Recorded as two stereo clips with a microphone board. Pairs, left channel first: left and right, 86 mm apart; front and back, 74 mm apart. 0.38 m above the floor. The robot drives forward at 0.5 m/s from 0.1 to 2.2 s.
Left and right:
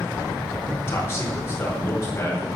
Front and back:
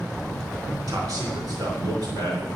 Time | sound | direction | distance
0.9 | a man speaking | 150° left | 3.5 m